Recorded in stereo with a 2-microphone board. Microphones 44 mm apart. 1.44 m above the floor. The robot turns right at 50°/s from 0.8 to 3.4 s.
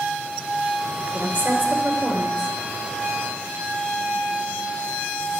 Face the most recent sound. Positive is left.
turn(degrees=-40)